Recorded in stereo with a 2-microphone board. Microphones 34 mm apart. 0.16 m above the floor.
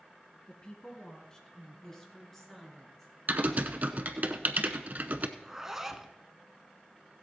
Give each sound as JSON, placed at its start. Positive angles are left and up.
{"t": 0.5, "sound": "a woman speaking", "side_deg": 25, "distance_m": 1.9}
{"t": 3.3, "sound": "typing on a keyboard", "side_deg": -50, "distance_m": 0.7}
{"t": 5.4, "sound": "a zipper", "side_deg": -10, "distance_m": 0.8}